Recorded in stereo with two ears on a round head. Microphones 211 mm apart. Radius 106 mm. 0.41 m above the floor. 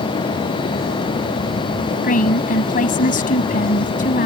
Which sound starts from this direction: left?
A woman speaking, at 2.0 s.